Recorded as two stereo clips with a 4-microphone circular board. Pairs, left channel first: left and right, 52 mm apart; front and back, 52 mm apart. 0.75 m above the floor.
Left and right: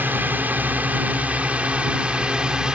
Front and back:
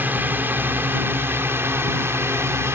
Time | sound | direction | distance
0.0 | a drone | 135° right | ?